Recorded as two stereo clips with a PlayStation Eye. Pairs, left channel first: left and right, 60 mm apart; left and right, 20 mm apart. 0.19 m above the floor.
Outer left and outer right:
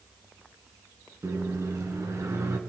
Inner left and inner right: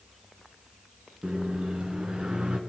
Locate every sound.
1.2 s a microwave: 55° right (ahead or behind), 2.0 m